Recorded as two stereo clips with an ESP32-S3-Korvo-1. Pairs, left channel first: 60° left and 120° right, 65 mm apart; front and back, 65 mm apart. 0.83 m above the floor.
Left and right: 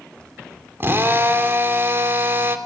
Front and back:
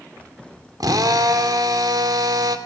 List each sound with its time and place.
0.8 s a drill: 175° right, 2.5 m